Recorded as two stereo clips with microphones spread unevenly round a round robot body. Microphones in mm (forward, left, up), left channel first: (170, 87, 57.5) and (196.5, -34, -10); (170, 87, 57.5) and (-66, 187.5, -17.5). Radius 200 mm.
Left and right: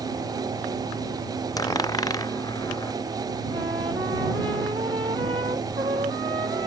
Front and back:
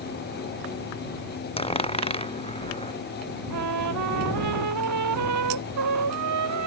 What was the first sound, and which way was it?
A dropped coin, 45° left.